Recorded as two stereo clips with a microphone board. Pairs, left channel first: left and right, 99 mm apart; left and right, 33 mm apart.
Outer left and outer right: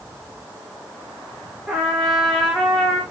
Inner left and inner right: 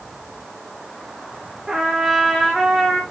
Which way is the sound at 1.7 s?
Centre (ahead or behind).